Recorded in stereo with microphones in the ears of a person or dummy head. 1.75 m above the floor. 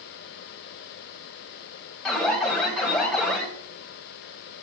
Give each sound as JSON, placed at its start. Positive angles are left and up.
{"t": 2.0, "sound": "an alarm", "side_deg": 5, "distance_m": 1.5}